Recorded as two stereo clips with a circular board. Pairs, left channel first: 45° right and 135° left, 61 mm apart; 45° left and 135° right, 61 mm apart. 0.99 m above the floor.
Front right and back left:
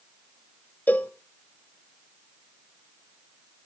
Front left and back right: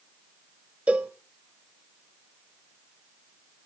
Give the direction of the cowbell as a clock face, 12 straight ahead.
3 o'clock.